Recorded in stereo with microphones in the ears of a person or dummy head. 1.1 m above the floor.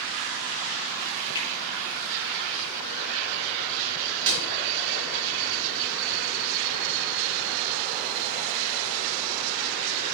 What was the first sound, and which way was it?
A finger snap, 25° left (ahead or behind).